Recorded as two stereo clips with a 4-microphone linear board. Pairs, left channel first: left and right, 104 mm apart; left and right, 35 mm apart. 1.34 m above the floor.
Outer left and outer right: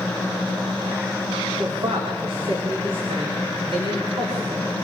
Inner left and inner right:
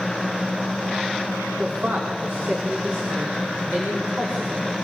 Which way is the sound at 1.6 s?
75° right (ahead or behind).